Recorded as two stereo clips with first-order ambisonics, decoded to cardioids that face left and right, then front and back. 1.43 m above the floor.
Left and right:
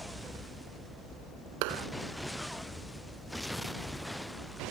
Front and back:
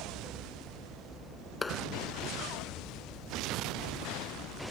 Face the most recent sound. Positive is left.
turn(degrees=-75)